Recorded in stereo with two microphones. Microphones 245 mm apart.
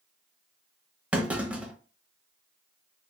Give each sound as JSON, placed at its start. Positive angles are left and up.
{"t": 1.1, "sound": "a clunk", "side_deg": -5, "distance_m": 0.7}